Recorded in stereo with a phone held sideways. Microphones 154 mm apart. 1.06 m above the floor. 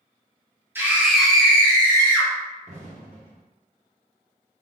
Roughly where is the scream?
Centre.